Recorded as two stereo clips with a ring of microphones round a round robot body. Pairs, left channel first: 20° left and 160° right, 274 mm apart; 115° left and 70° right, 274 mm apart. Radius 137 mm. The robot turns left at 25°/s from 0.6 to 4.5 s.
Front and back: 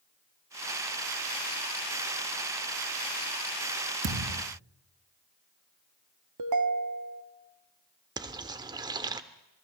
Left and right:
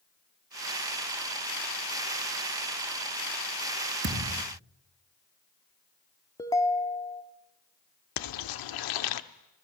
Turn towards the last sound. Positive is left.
turn(degrees=125)